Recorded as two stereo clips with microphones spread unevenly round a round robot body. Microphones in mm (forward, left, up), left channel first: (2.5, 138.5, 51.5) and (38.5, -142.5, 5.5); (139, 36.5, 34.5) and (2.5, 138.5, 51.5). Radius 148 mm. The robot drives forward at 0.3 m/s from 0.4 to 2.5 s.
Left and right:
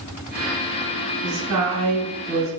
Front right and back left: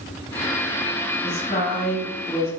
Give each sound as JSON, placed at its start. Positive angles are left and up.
{"t": 1.2, "sound": "a woman speaking", "azimuth_deg": -95, "distance_m": 1.6}